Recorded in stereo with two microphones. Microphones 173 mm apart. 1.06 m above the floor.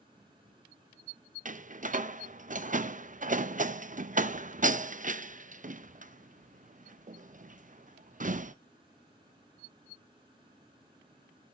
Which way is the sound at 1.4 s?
50° right (ahead or behind).